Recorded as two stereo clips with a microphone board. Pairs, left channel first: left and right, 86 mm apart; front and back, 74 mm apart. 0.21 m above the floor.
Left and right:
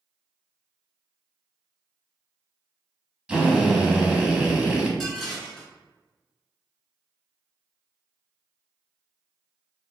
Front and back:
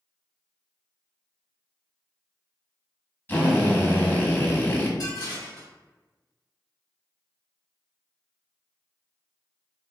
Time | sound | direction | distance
3.3 | a drill | 25° right | 0.8 m
5.0 | dishes clattering | 5° left | 1.5 m